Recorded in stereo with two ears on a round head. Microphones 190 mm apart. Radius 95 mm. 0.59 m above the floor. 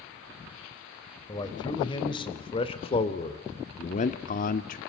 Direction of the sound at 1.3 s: 20° left (ahead or behind).